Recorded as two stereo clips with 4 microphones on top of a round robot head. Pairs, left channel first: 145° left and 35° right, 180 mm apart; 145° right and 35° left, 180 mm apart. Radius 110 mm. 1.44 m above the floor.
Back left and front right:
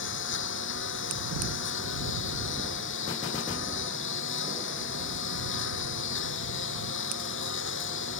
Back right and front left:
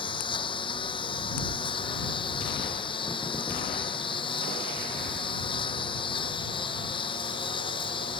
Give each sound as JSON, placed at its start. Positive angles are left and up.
{"t": 0.0, "sound": "a lawn mower", "azimuth_deg": 150}